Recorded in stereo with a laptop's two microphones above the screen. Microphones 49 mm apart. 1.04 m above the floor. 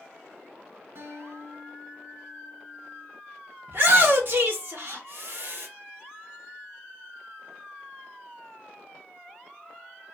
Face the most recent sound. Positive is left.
turn(degrees=-50)  # may be behind; listen again after turning